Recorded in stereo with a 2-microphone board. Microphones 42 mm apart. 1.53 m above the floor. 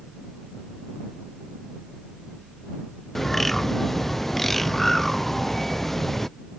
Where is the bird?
5° left (ahead or behind).